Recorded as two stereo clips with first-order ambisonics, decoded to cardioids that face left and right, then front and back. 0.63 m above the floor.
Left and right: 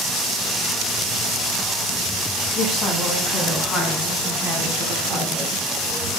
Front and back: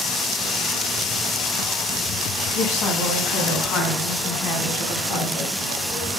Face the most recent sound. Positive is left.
turn(degrees=-35)